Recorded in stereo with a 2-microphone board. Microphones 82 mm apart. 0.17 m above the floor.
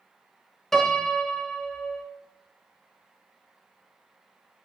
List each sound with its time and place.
0.7 s a piano: 5° left (ahead or behind), 0.6 m